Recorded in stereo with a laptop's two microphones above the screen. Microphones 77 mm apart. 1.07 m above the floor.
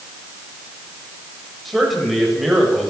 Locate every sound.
1.6 s a man speaking: centre (ahead or behind), 6.5 m